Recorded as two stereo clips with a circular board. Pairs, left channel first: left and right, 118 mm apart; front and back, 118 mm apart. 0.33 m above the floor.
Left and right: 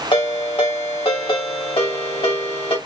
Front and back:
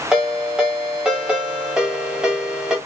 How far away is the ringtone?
About 1.3 m.